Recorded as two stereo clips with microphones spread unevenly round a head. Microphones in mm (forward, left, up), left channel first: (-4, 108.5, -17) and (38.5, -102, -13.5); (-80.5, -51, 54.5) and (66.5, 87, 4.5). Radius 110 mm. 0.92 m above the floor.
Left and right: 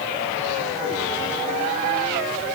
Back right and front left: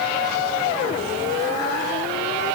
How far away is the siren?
No siren in this recording.